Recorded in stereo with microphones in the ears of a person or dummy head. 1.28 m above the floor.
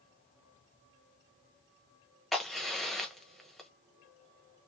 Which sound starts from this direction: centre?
A crack, at 2.3 s.